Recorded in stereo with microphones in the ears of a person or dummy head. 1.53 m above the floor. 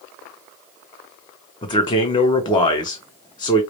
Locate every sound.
1.6 s a man speaking: 25° left (ahead or behind), 0.9 m